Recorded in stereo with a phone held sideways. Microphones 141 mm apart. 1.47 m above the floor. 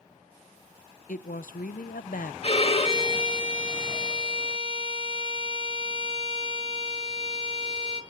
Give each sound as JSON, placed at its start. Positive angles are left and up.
{"t": 1.1, "sound": "a woman speaking", "side_deg": 75, "distance_m": 0.7}
{"t": 2.4, "sound": "a violin", "side_deg": 45, "distance_m": 2.0}